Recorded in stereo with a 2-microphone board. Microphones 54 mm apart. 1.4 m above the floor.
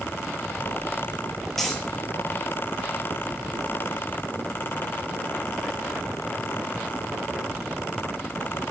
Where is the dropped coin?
5° left (ahead or behind), 4.5 m.